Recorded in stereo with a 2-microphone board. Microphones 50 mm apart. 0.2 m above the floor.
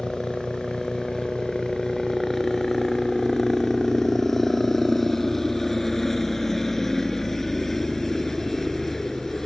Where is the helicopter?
5° left (ahead or behind).